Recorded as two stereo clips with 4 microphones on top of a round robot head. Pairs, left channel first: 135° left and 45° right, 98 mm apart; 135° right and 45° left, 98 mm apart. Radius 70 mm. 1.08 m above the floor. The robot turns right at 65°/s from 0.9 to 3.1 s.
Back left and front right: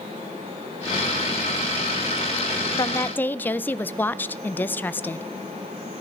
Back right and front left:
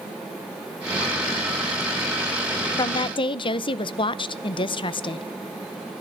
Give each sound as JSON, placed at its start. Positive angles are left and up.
{"t": 2.8, "sound": "a woman speaking", "azimuth_deg": 180, "distance_m": 0.6}